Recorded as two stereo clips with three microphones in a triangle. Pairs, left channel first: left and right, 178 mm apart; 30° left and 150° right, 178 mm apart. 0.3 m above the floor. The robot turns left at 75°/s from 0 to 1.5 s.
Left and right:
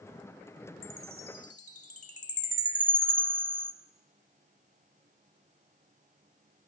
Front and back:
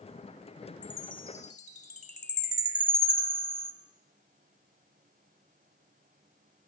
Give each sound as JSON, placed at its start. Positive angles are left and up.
{"t": 0.8, "sound": "a chime", "azimuth_deg": 110, "distance_m": 2.0}